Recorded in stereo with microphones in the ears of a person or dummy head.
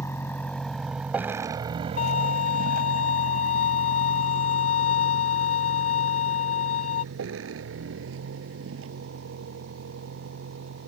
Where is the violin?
55° left (ahead or behind).